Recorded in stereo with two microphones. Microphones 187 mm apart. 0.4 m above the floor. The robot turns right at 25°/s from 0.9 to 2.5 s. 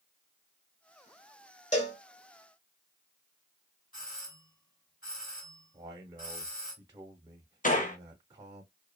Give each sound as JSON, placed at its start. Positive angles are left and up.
{"t": 1.7, "sound": "a cowbell", "side_deg": 40, "distance_m": 1.0}
{"t": 3.9, "sound": "a doorbell", "side_deg": 45, "distance_m": 2.5}
{"t": 5.7, "sound": "a man speaking", "side_deg": -15, "distance_m": 0.9}
{"t": 7.6, "sound": "a gunshot", "side_deg": 45, "distance_m": 0.7}